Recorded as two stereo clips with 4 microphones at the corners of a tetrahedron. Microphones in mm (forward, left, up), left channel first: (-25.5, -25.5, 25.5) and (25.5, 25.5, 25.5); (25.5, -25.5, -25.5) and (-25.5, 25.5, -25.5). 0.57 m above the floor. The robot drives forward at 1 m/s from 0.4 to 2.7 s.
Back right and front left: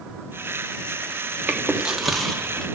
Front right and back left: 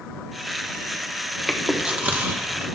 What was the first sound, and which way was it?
Chewing, 55° left.